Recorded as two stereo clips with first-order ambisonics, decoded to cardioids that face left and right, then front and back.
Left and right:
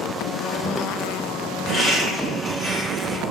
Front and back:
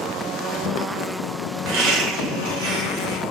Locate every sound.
1.6 s laughter: 165° left, 1.4 m